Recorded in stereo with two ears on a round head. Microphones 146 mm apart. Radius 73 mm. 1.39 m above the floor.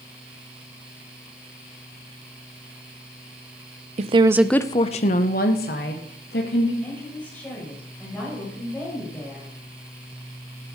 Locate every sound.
4.0 s a woman speaking: 45° right (ahead or behind), 0.7 m; by 6.7 s 75° left (ahead or behind), 2.5 m
6.8 s a woman speaking: 10° left (ahead or behind), 6 m